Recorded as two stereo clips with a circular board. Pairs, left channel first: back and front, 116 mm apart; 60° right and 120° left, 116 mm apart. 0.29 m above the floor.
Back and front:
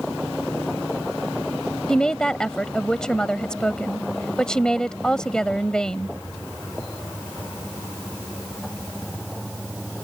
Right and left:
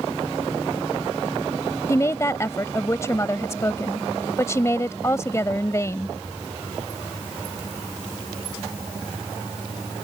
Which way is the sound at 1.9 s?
100° right.